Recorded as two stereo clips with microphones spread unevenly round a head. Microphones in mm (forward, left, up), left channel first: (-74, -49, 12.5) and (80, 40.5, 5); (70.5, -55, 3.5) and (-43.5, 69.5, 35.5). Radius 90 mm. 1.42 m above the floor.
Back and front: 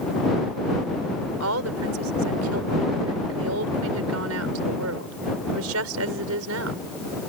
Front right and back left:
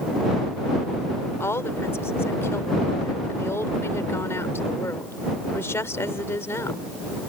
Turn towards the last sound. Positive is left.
turn(degrees=30)